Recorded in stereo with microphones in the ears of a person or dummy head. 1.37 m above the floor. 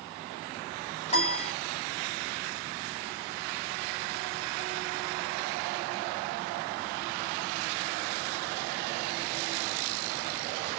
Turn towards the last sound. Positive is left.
turn(degrees=30)  # may be behind; listen again after turning